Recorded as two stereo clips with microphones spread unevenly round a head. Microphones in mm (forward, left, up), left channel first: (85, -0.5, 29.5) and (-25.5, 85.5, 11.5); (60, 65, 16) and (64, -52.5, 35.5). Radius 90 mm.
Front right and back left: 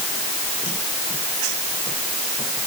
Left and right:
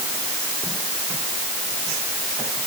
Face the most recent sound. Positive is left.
No sound to turn to.